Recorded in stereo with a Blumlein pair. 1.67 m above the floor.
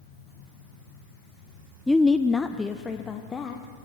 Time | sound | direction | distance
1.9 | a woman speaking | 5° left | 0.5 m